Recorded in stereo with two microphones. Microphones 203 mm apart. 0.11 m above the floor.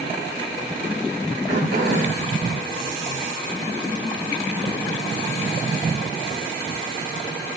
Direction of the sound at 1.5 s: 85° right.